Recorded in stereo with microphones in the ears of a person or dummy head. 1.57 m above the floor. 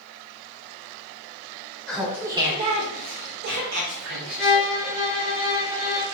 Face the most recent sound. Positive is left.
turn(degrees=-10)  # may be behind; listen again after turning